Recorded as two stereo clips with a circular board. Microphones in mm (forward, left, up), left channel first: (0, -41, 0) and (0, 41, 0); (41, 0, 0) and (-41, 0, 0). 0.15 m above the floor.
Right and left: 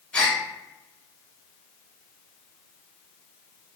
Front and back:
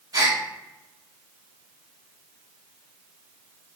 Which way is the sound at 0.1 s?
160° right.